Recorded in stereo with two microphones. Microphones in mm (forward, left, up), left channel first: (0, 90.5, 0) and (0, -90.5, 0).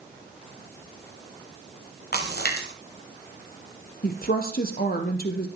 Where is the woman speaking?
55° left (ahead or behind), 3 m.